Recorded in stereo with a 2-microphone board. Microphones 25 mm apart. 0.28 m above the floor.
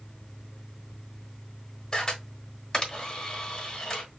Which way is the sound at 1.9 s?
25° left (ahead or behind).